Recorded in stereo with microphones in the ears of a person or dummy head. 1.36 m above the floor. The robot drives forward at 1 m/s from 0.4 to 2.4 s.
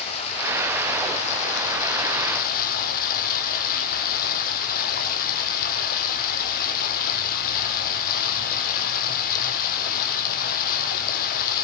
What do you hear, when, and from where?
0.0 s running water: 35° left (ahead or behind), 5 m; by 11.6 s 50° left (ahead or behind), 4 m